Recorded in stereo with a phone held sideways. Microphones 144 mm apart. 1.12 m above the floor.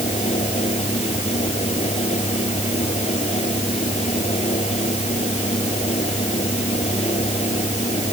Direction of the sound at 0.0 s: 50° left (ahead or behind).